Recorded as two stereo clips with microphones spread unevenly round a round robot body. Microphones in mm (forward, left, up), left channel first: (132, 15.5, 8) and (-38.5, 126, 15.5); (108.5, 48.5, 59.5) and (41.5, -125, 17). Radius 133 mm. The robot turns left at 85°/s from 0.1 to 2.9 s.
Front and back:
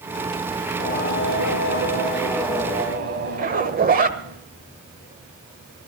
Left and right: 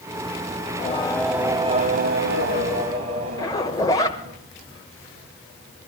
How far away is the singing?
About 1.5 m.